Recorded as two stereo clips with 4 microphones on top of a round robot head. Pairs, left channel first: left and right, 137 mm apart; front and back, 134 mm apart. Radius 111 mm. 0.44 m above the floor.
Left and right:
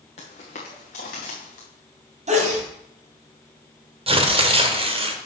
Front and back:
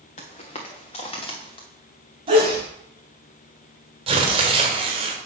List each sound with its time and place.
0.2 s footsteps: 35° left, 2 m; by 1.7 s 50° left, 3 m
2.3 s a sneeze: 125° right, 3 m
4.1 s tearing paper: 135° right, 1.3 m